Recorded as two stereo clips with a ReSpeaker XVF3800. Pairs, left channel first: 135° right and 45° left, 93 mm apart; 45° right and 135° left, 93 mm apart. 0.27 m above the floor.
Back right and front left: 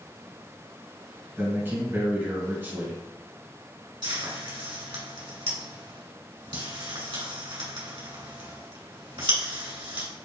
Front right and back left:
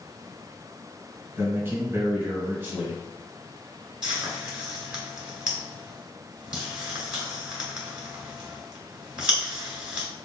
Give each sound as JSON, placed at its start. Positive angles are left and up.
{"t": 1.4, "sound": "a man speaking", "azimuth_deg": 90, "distance_m": 1.8}
{"t": 4.0, "sound": "frying", "azimuth_deg": 55, "distance_m": 1.9}